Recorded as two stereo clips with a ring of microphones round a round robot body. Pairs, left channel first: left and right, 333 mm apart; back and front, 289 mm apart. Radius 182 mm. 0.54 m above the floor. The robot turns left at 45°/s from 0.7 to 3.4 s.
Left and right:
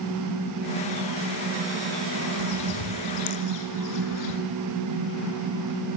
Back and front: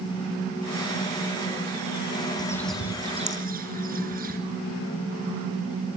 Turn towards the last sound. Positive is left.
turn(degrees=60)